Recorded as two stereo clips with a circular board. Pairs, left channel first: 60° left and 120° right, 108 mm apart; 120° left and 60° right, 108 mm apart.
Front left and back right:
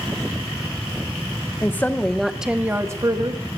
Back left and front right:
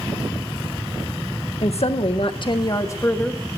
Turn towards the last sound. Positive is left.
turn(degrees=-160)